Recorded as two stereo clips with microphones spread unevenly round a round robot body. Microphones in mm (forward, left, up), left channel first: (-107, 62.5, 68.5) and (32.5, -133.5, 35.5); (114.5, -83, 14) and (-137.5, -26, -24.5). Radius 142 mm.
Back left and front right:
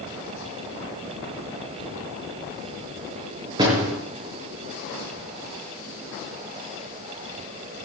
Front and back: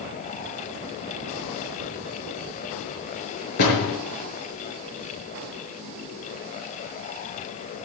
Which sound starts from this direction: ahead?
A door slam, at 3.6 s.